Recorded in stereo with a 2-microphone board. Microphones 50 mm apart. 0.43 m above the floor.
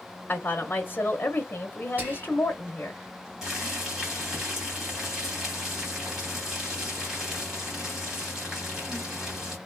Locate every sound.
0.3 s a woman speaking: 35° left (ahead or behind), 0.9 m
2.0 s whispering: 40° right (ahead or behind), 2 m
3.4 s boiling: 15° right (ahead or behind), 2 m